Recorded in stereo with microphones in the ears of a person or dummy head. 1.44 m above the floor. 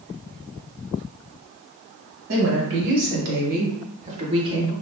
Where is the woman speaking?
75° right (ahead or behind), 1.5 m; by 4.7 s 15° right (ahead or behind), 1.0 m.